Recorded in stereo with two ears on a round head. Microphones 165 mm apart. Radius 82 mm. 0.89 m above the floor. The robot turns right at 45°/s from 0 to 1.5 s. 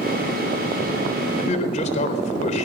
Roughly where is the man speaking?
Left.